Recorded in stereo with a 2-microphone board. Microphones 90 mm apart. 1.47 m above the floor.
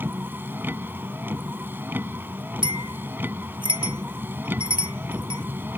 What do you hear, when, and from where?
0.0 s a vehicle: 25° right (ahead or behind)
2.6 s a bell: 70° right (ahead or behind)